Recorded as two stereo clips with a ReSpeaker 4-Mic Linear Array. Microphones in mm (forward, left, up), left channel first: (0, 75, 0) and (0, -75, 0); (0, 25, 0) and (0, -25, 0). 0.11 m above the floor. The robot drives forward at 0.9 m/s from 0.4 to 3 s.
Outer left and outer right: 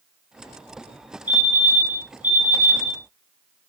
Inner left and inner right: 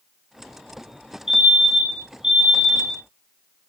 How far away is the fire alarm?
About 2 m.